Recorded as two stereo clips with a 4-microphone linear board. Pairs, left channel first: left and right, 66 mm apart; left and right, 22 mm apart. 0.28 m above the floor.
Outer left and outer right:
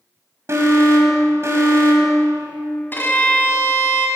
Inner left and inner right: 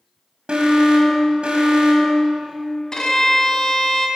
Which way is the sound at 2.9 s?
35° left (ahead or behind).